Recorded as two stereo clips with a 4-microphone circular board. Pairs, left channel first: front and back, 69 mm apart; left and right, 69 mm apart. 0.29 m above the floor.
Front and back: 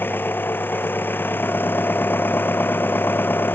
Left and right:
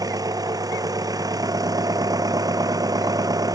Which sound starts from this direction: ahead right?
An engine running, at 0.0 s.